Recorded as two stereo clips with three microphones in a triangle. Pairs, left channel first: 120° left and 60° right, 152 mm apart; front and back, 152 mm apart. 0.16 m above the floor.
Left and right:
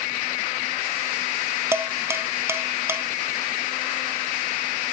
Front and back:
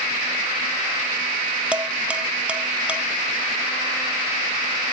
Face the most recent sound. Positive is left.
turn(degrees=-110)